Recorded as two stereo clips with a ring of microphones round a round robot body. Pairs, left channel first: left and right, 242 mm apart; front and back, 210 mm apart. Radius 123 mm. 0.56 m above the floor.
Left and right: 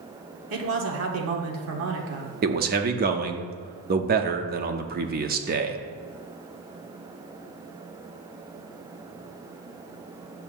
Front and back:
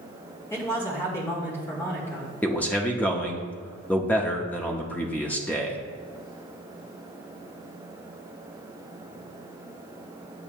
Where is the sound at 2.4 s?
80° right, 0.7 m.